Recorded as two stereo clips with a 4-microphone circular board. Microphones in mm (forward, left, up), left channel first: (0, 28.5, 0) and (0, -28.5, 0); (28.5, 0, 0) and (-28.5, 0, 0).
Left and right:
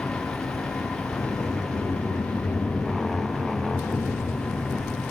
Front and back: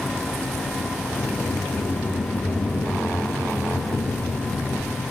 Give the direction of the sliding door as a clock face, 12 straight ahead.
11 o'clock.